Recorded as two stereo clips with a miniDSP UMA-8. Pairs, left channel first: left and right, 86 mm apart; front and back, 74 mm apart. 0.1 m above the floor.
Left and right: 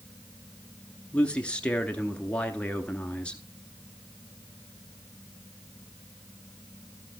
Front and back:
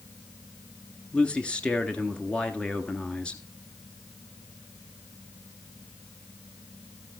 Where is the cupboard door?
I don't hear a cupboard door.